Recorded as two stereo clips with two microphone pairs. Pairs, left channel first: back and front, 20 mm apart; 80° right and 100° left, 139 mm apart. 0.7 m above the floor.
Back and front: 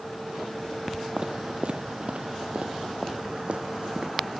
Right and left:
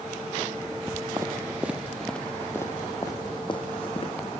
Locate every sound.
1.2 s footsteps: 35° left, 1.4 m; by 4.4 s 35° right, 2.5 m